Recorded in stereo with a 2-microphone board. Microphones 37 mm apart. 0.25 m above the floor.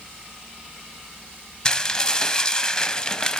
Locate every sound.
1.6 s dishes clattering: 20° left (ahead or behind), 0.8 m